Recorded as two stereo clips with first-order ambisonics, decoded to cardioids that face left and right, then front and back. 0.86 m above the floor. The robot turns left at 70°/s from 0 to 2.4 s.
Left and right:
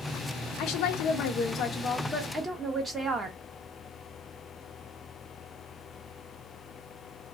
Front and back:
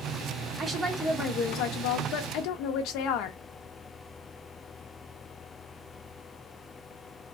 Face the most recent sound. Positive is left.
turn(degrees=-15)